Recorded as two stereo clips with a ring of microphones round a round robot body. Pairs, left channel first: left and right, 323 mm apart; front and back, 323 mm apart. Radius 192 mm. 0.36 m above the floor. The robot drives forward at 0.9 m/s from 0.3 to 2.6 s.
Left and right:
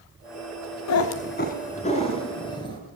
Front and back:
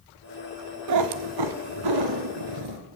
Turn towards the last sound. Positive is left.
turn(degrees=170)